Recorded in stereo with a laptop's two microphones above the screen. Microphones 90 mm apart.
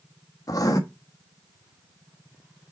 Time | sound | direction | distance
0.5 | writing | 40° left (ahead or behind) | 1.3 m